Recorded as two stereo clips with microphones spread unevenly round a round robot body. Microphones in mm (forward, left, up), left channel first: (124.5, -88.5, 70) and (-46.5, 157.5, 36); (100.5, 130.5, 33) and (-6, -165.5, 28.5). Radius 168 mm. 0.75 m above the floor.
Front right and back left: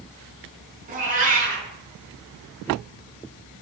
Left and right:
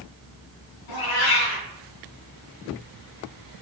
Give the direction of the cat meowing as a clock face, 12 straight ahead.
10 o'clock.